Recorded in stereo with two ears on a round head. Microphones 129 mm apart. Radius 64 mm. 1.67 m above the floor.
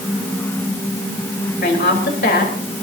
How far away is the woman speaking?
About 4 m.